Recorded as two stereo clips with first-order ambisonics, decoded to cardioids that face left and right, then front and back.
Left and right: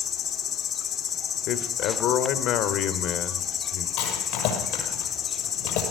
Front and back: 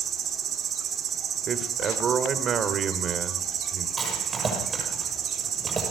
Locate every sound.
0.0 s an insect: 130° left, 2.0 m
1.5 s a man speaking: 120° left, 1.8 m
4.0 s a rattle: 105° left, 6 m